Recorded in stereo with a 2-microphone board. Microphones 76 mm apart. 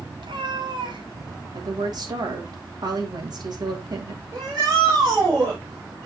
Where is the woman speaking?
60° right (ahead or behind), 2.5 m.